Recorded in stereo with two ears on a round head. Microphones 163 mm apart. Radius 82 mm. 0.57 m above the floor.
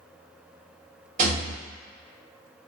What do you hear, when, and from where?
1.2 s a rattle: 45° right (ahead or behind), 1.0 m